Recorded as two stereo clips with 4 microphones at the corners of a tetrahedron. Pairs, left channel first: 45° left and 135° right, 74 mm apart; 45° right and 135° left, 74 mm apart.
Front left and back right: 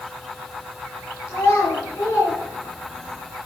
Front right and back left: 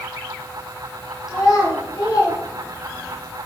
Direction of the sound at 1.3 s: 5° right.